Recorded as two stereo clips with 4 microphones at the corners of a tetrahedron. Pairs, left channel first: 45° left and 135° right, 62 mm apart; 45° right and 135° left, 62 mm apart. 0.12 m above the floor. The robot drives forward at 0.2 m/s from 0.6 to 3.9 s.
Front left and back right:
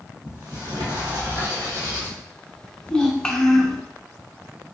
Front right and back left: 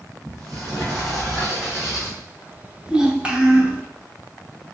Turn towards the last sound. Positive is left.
turn(degrees=125)